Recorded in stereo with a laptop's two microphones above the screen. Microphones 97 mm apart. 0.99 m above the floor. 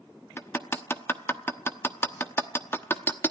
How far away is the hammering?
About 0.9 m.